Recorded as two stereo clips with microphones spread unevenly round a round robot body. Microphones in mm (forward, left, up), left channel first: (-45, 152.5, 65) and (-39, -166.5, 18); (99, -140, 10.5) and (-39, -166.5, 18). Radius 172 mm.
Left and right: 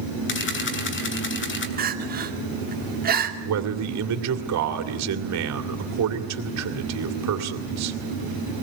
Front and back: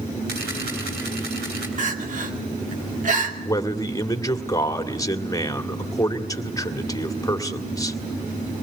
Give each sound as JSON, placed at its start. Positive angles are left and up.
{"t": 0.3, "sound": "a camera shutter", "azimuth_deg": 145, "distance_m": 3.0}
{"t": 1.8, "sound": "crying", "azimuth_deg": -145, "distance_m": 2.5}
{"t": 3.5, "sound": "a man speaking", "azimuth_deg": -55, "distance_m": 2.5}